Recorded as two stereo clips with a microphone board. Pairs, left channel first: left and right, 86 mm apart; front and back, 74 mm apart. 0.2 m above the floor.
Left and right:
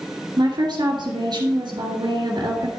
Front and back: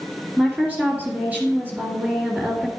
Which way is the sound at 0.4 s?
110° right.